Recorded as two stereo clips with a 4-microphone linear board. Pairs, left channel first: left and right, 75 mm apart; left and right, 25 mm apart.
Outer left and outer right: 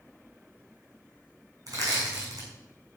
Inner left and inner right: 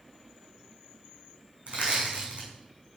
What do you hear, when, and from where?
1.7 s crushing: 50° right (ahead or behind), 6.5 m